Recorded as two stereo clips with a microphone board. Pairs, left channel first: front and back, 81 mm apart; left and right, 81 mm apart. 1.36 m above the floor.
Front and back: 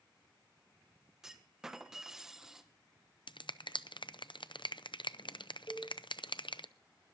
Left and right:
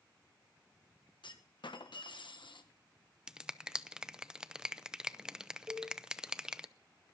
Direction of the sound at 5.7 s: 45° right.